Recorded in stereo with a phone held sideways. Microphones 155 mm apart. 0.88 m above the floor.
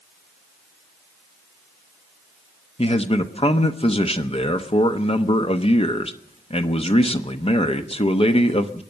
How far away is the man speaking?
About 1.0 m.